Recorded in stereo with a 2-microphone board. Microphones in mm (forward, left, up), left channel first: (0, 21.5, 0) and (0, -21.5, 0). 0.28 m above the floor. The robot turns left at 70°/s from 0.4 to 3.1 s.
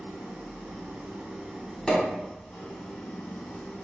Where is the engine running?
75° right, 0.9 m; by 3.9 s 100° left, 0.9 m.